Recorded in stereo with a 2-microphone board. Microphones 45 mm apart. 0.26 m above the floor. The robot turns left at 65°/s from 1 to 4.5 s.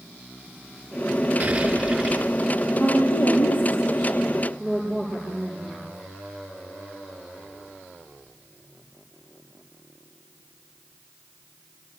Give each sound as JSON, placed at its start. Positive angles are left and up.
{"t": 1.4, "sound": "an explosion", "azimuth_deg": -140, "distance_m": 3.0}
{"t": 2.8, "sound": "a woman speaking", "azimuth_deg": 105, "distance_m": 8.0}